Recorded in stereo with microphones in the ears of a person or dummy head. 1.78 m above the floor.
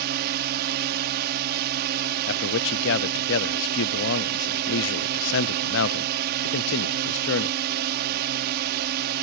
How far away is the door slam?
No door slam in this recording.